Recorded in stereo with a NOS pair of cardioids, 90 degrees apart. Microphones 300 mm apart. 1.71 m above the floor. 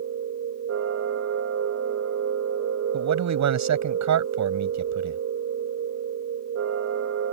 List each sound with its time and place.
0.0 s a machine running: 60° right
2.9 s a man speaking: 65° right